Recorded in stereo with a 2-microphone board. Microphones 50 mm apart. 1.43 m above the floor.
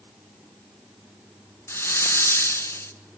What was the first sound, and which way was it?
A hiss, 60° left (ahead or behind).